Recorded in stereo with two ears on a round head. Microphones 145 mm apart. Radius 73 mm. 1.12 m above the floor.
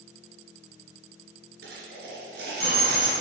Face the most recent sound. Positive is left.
turn(degrees=-65)  # may be behind; listen again after turning